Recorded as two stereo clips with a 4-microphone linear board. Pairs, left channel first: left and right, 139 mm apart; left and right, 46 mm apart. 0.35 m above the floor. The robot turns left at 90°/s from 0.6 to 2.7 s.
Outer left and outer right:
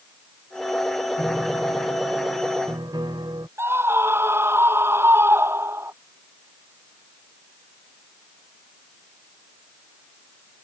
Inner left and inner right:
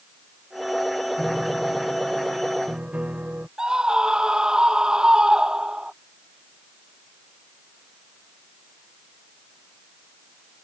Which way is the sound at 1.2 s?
10° left.